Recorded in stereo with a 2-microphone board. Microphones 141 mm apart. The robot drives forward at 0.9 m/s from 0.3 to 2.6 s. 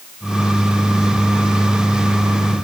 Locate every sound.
Only background noise.